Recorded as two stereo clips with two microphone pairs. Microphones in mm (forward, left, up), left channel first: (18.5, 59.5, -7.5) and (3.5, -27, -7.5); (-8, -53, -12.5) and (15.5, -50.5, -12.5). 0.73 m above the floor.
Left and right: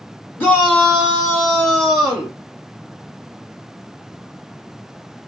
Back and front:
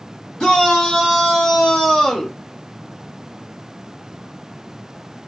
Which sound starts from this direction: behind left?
A shout, at 0.4 s.